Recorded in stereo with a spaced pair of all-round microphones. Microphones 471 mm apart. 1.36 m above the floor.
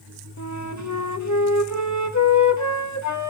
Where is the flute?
35° left (ahead or behind), 1.5 m.